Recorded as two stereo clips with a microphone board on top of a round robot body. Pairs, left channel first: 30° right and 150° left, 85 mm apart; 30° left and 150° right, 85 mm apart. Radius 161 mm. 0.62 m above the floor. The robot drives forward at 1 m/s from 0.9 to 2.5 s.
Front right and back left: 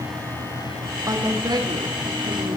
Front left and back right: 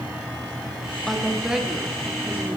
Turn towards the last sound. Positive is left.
turn(degrees=145)